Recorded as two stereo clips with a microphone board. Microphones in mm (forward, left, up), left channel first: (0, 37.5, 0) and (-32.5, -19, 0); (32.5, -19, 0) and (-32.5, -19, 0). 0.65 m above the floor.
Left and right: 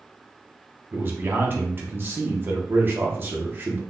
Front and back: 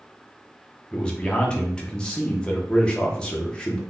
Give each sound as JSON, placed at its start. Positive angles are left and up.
{"t": 0.9, "sound": "a man speaking", "azimuth_deg": -75, "distance_m": 0.8}